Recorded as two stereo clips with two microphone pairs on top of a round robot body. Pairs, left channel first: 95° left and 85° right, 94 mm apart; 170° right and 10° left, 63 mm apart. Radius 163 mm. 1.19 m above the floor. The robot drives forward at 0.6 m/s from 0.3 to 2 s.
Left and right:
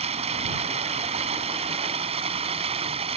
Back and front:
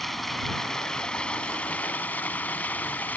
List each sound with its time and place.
0.0 s running water: 80° right; by 3.2 s 100° right